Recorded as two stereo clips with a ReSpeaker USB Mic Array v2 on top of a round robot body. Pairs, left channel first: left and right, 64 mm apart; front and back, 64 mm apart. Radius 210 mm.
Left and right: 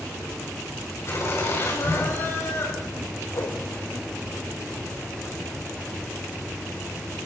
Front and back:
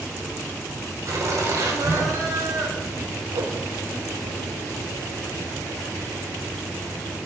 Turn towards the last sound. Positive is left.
turn(degrees=145)